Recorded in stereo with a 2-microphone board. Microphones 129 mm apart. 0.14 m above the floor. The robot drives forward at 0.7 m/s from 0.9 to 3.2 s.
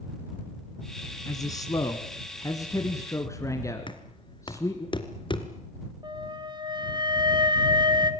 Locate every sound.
1.3 s a man speaking: 30° left (ahead or behind), 1.8 m; by 4.9 s 25° left (ahead or behind), 2 m
3.9 s knocking: 40° left (ahead or behind), 2 m
6.0 s a flute: 35° right (ahead or behind), 1.9 m